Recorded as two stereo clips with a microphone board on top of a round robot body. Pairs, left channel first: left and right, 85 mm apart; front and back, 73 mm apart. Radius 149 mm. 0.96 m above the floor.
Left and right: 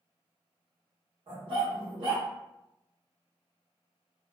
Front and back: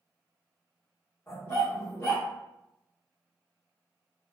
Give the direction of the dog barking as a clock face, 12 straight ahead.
2 o'clock.